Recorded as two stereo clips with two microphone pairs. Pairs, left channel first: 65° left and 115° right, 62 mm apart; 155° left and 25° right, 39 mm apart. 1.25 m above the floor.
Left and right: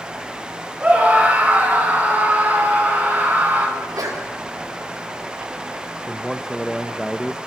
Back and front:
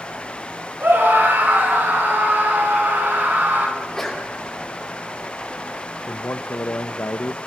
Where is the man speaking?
155° left, 0.9 m.